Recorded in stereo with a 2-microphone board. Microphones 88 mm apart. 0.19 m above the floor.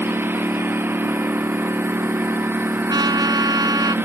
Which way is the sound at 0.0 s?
25° right (ahead or behind).